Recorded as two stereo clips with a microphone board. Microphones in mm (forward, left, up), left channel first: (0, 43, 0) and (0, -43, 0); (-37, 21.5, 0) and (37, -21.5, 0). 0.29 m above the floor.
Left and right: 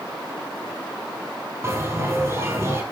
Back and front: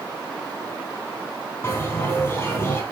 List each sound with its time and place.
1.6 s a bell: 150° right, 3 m